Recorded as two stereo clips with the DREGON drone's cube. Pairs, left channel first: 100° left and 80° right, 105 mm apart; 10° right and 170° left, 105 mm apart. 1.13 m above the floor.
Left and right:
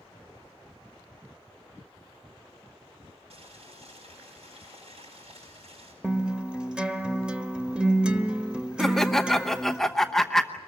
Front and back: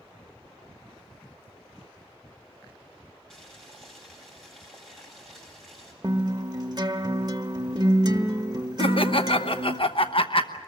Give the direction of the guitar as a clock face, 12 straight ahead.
5 o'clock.